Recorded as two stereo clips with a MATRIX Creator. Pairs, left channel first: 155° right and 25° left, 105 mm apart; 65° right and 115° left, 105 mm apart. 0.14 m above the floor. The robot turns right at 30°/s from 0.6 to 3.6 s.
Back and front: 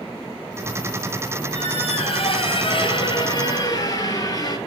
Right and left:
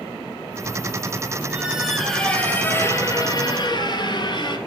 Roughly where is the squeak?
Behind.